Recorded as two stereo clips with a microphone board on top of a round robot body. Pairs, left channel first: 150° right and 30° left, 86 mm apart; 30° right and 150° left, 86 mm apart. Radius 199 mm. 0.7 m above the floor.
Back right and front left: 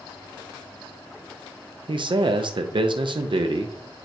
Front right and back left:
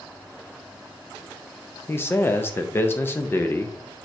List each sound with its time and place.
1.9 s a man speaking: 30° left, 0.7 m